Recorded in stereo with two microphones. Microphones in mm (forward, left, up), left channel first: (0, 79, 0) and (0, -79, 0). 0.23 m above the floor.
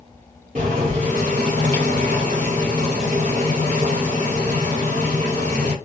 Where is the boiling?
50° right (ahead or behind), 2 m.